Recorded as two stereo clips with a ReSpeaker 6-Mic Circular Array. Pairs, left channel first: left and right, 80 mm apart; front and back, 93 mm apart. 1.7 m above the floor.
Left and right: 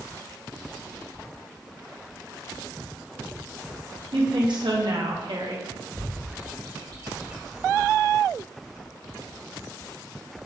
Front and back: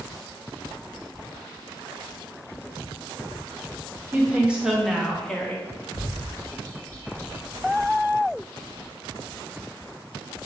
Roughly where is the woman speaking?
Right.